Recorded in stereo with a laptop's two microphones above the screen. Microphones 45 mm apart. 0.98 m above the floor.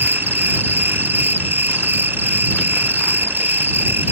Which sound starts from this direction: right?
An insect, at 0.0 s.